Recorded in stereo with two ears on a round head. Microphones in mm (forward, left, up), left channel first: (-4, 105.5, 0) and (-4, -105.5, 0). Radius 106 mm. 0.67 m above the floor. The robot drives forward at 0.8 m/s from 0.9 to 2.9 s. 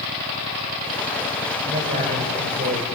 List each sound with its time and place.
1.6 s a man speaking: 30° right (ahead or behind), 3 m; by 2.9 s 40° right (ahead or behind), 2 m